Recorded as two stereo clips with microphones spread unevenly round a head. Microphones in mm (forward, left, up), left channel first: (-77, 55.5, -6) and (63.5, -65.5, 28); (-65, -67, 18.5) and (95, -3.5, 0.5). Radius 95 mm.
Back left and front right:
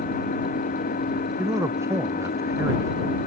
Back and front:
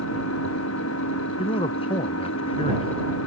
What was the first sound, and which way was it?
An engine running, 175° right.